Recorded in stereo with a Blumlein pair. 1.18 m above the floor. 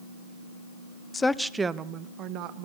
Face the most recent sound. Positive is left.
turn(degrees=-45)